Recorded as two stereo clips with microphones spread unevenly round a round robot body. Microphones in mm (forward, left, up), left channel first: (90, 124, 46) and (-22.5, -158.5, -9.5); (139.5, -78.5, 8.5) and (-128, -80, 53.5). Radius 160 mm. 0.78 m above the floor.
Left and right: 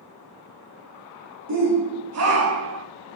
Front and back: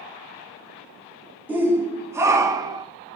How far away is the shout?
About 2.5 m.